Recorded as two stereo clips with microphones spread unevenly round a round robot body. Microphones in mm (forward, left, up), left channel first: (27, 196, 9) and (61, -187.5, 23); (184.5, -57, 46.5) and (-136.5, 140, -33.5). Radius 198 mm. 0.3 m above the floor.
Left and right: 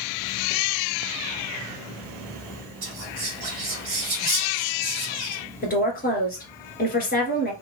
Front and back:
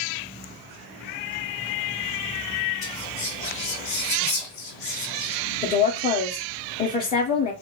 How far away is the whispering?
About 1.3 m.